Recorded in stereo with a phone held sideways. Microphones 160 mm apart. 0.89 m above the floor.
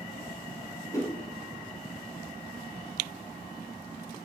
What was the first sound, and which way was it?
A whoosh, 20° left (ahead or behind).